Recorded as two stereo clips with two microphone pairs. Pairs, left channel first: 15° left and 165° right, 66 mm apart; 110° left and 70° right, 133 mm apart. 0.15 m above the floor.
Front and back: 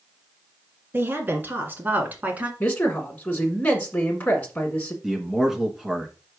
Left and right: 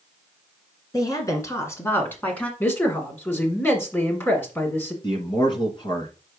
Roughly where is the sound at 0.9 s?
Behind.